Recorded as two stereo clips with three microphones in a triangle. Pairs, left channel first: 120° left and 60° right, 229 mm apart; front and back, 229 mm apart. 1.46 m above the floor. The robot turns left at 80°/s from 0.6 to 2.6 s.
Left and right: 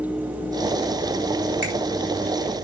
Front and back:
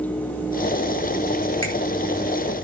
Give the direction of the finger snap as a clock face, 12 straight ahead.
1 o'clock.